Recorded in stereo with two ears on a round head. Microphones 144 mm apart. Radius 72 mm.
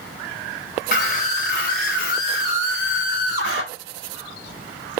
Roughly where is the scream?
Left.